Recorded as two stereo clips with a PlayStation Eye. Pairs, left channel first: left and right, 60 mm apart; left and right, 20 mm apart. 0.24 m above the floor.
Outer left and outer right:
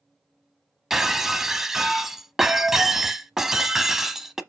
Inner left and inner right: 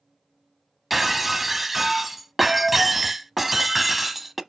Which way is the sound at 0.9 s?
5° right (ahead or behind).